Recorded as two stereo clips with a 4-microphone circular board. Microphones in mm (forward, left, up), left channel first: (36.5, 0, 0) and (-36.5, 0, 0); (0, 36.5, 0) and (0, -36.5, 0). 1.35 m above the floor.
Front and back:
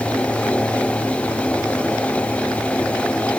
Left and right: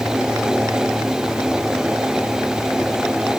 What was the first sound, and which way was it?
Only background noise.